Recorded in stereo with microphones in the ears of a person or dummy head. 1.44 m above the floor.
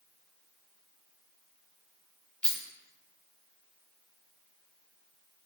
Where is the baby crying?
I don't hear a baby crying.